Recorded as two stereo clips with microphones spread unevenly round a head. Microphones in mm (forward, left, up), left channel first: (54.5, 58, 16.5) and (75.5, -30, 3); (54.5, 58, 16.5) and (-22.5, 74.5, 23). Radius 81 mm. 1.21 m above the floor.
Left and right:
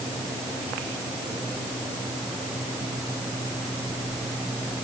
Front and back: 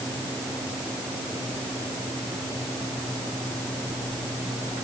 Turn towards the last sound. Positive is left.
No sound to turn to.